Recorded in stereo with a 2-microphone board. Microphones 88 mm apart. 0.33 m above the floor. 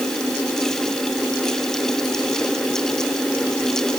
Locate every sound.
Only background noise.